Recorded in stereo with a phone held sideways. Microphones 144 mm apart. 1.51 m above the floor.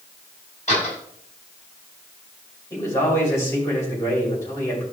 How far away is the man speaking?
About 6 m.